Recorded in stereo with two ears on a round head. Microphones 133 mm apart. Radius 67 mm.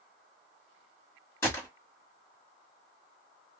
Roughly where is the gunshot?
Centre.